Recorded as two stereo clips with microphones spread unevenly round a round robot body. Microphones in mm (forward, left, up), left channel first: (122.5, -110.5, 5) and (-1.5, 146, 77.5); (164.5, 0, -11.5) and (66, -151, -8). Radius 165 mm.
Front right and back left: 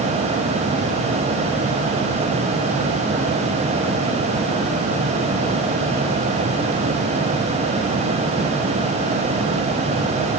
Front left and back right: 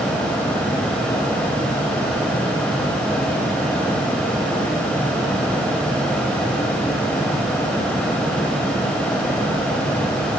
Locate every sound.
Only background noise.